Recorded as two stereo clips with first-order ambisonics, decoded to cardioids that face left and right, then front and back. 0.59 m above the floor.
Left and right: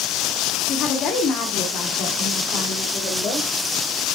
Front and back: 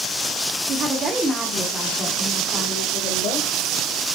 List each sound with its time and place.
0.7 s a woman speaking: 140° left, 1.5 m; by 3.5 s 35° left, 3 m